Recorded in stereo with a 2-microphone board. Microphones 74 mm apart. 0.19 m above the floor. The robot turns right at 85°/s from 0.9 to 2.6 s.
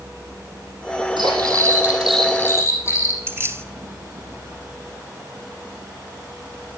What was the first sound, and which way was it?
Cutlery clinking, 85° right.